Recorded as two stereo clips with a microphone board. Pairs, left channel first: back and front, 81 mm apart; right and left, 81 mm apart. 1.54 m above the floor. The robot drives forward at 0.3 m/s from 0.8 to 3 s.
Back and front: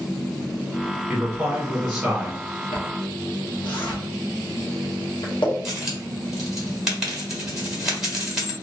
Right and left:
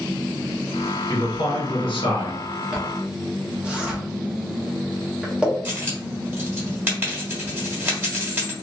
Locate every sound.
1.1 s a man speaking: 75° right, 1.4 m; by 2.4 s 90° right, 1.3 m
2.7 s a zipper: 170° left, 0.8 m
5.7 s a dropped coin: 80° left, 1.3 m